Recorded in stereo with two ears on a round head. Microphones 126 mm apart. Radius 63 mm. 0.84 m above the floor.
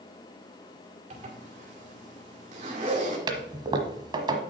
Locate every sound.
1.1 s a zipper: 55° right (ahead or behind), 2 m
3.3 s a toilet flushing: 35° right (ahead or behind), 1.2 m